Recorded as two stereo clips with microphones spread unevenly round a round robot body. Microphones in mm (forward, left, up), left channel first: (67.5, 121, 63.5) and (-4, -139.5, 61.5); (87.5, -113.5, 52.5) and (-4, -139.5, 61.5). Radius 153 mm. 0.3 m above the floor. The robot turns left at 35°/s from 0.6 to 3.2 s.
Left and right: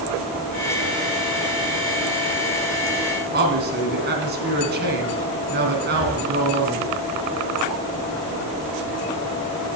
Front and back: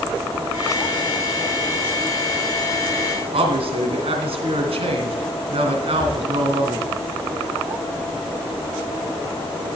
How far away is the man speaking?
About 3 m.